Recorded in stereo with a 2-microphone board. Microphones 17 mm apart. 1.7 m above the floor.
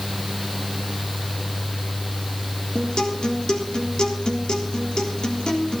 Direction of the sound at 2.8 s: 45° left (ahead or behind).